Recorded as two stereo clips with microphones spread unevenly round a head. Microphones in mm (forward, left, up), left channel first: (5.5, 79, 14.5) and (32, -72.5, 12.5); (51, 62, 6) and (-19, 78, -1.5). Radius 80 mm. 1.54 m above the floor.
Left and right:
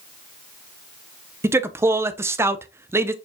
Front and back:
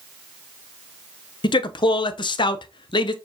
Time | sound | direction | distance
1.4 | a man speaking | 5° right | 0.6 m